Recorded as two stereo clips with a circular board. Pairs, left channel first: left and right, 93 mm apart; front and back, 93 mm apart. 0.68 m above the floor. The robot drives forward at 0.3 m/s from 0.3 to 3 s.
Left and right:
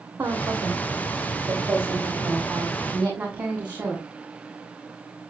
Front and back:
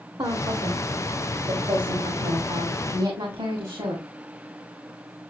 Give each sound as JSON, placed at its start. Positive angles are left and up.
{"t": 0.2, "sound": "a woman speaking", "azimuth_deg": -155, "distance_m": 1.3}